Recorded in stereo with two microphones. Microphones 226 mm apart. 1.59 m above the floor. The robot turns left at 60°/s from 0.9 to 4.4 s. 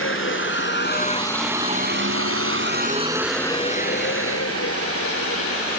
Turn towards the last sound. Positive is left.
turn(degrees=85)